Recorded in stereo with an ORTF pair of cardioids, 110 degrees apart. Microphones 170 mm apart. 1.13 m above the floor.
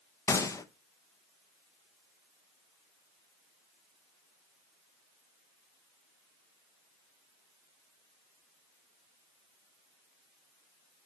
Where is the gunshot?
20° left, 0.7 m.